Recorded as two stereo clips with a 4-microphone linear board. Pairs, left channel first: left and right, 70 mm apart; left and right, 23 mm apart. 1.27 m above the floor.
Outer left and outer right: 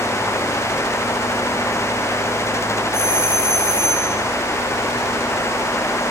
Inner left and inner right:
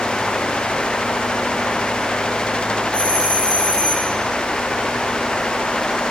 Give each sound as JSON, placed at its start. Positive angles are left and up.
{"t": 2.9, "sound": "a doorbell", "side_deg": 40, "distance_m": 6.5}